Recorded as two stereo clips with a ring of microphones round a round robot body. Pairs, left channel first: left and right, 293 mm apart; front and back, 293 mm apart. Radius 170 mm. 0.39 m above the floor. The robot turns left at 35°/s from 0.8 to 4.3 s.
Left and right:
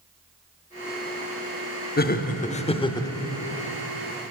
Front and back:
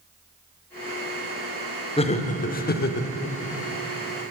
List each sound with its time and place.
2.0 s laughter: 60° left, 0.9 m; by 3.1 s 20° left, 0.9 m